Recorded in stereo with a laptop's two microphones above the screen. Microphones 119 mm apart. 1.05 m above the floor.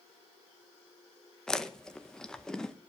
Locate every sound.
1.5 s chewing: 5° left (ahead or behind), 0.9 m